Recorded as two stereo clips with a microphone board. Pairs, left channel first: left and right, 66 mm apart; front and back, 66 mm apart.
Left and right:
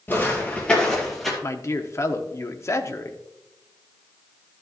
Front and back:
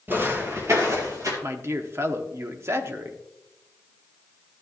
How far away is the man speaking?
About 0.9 m.